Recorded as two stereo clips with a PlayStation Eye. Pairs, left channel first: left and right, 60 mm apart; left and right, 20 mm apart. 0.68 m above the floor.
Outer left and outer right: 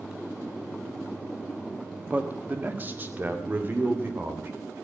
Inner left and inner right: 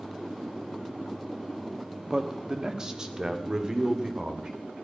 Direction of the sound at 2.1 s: 25° right (ahead or behind).